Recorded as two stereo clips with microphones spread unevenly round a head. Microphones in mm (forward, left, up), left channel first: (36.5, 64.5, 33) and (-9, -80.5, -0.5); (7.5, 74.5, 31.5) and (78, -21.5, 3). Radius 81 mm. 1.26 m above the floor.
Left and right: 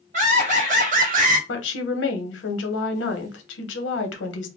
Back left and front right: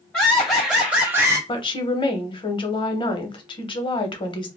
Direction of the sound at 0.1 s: 145° right.